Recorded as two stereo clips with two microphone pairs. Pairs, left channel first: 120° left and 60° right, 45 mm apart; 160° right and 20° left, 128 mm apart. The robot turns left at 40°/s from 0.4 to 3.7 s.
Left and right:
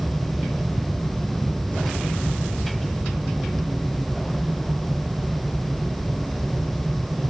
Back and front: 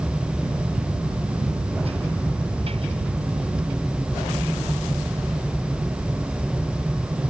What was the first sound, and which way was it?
Only background noise.